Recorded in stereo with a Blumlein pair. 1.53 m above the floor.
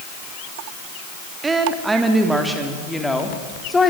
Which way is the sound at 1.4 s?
15° right.